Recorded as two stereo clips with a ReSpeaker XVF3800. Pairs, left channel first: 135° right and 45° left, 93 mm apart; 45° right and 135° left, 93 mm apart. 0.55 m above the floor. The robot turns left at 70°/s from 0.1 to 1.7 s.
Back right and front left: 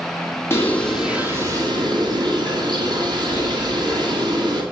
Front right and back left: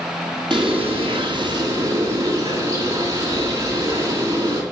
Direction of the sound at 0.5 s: 165° left.